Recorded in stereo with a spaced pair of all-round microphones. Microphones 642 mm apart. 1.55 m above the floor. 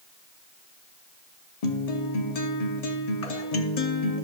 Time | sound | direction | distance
1.6 | a guitar | 70° left (ahead or behind) | 0.8 m